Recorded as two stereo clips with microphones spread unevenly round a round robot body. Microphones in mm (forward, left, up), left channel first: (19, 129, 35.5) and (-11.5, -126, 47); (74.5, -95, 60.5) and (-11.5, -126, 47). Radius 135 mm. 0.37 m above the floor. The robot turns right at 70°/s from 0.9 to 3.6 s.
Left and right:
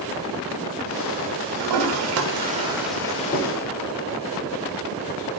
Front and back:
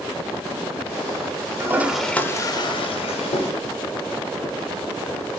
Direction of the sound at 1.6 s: 100° right.